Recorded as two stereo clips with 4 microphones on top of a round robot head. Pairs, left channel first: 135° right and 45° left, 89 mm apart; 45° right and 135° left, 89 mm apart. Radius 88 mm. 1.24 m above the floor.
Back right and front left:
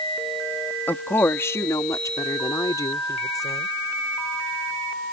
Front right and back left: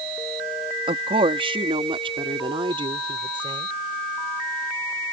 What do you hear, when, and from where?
0.9 s a woman speaking: 155° left; by 3.7 s 170° left